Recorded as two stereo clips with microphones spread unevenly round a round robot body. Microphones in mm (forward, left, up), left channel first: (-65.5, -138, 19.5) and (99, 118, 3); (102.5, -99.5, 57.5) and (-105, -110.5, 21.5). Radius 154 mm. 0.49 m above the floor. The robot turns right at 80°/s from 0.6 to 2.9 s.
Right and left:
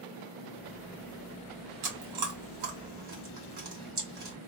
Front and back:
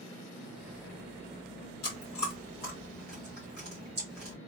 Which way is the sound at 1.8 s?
35° left.